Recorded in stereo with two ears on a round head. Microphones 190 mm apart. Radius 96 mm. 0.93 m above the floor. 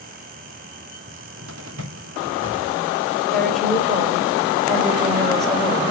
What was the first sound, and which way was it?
A cupboard door, 75° right (ahead or behind).